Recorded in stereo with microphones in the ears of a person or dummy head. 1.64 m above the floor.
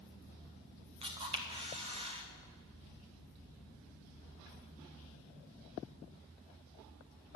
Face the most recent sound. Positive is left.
turn(degrees=-30)  # may be behind; listen again after turning